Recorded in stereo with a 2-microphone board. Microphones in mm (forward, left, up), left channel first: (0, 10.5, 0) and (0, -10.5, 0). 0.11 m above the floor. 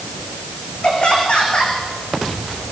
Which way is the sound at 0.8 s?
45° left (ahead or behind).